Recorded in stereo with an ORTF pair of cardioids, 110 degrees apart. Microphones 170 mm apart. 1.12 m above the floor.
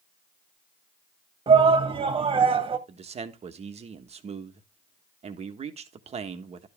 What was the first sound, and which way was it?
A shout, 30° right.